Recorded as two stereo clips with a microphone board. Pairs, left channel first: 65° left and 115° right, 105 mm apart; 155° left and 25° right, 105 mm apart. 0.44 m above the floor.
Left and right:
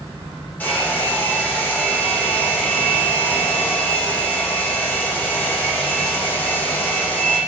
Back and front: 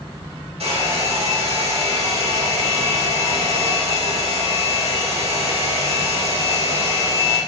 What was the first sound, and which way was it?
A hair dryer, 5° right.